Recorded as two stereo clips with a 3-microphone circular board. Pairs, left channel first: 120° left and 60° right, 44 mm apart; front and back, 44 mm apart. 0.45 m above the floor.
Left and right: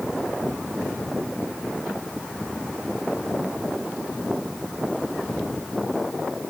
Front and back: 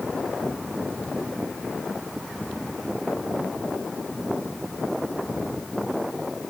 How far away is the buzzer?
No buzzer in this recording.